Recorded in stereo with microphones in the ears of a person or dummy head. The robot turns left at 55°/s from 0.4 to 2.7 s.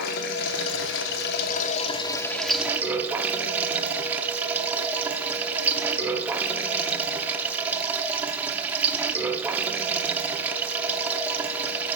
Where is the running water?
115° left, 0.7 m; by 12.0 s 10° right, 0.7 m.